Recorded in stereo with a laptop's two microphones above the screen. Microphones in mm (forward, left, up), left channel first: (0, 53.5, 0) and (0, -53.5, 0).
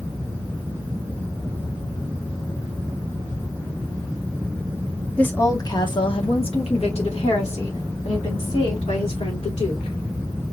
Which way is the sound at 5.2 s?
10° left (ahead or behind).